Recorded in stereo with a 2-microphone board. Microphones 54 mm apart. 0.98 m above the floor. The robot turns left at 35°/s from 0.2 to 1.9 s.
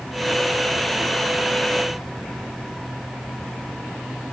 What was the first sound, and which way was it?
Only background noise.